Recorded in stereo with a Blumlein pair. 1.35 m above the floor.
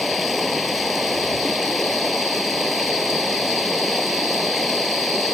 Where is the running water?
Straight ahead.